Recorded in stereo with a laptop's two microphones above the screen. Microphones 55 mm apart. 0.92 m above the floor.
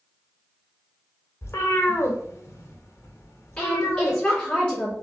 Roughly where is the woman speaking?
Left.